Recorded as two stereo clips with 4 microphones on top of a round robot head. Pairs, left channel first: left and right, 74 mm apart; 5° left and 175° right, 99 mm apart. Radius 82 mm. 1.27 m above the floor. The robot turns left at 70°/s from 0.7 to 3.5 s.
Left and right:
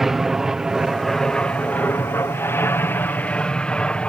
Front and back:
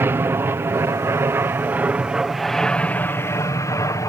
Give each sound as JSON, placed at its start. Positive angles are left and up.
{"t": 0.0, "sound": "an aircraft", "azimuth_deg": -170}